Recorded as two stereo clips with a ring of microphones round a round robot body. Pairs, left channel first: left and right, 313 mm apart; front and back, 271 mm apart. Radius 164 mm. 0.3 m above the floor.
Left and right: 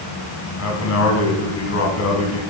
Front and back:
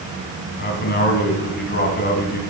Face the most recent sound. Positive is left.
turn(degrees=50)